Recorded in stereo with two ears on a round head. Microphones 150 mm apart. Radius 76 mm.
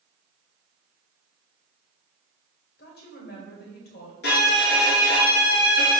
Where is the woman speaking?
65° left (ahead or behind), 2 m.